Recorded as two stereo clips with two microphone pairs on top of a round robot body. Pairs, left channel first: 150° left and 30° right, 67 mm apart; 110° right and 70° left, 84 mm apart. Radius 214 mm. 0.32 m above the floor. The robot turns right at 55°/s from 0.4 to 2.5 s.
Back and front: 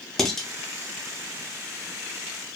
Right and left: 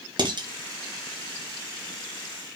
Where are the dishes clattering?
65° left, 1.1 m; by 0.5 s 70° left, 1.1 m.